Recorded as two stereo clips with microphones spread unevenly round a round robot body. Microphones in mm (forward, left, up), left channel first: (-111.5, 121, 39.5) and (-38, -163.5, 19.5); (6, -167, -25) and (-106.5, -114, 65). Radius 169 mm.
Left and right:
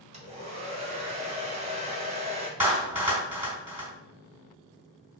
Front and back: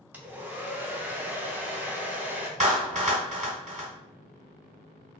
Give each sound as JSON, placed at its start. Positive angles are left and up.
{"t": 0.1, "sound": "a hair dryer", "azimuth_deg": -55, "distance_m": 0.7}
{"t": 2.6, "sound": "a clap", "azimuth_deg": -155, "distance_m": 1.6}